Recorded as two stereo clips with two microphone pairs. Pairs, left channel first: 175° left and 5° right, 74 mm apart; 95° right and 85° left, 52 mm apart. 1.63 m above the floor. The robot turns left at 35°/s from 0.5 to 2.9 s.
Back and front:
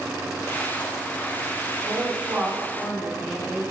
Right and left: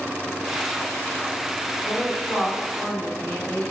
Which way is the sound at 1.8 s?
45° right.